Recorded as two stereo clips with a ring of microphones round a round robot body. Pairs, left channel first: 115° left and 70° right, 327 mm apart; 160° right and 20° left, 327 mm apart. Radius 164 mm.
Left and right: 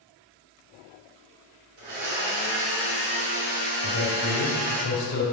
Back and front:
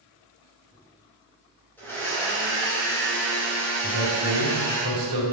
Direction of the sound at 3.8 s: 50° left.